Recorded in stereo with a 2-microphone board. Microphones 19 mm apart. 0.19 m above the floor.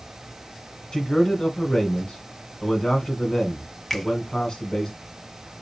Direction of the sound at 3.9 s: 15° left (ahead or behind).